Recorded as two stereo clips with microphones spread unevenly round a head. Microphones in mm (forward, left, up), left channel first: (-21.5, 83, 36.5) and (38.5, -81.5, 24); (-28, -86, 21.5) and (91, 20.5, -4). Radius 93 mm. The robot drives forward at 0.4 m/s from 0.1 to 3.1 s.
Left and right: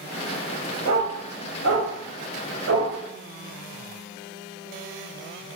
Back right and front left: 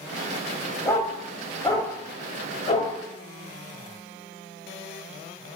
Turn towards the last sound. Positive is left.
turn(degrees=-95)